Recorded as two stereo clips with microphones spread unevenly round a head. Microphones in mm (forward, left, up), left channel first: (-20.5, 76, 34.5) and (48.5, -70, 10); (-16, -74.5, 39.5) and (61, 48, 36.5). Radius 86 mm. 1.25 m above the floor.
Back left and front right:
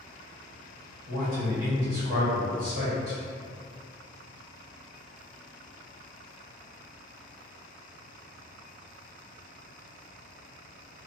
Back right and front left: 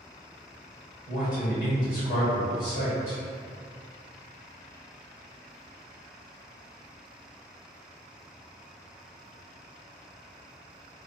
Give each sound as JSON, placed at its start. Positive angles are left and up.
{"t": 1.1, "sound": "a man speaking", "azimuth_deg": -95, "distance_m": 1.3}